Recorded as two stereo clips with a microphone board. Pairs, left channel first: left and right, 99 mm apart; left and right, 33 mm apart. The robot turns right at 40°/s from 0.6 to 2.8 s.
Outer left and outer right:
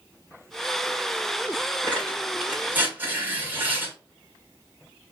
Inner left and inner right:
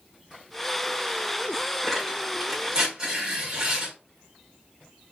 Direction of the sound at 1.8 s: 20° left (ahead or behind).